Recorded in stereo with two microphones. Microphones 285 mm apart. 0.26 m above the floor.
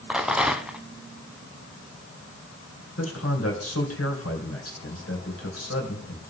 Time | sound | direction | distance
0.1 | a rattle | 5° right (ahead or behind) | 0.7 m
3.0 | a man speaking | 55° left (ahead or behind) | 2.5 m